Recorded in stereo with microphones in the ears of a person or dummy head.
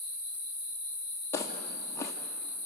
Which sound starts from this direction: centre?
Footsteps, at 1.3 s.